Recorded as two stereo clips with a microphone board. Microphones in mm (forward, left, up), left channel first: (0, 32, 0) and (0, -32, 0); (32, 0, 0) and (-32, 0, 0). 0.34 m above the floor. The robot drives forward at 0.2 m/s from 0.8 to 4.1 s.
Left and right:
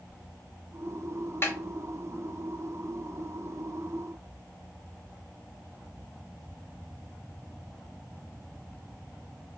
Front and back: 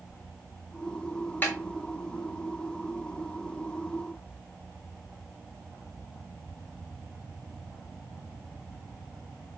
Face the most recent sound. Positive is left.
turn(degrees=100)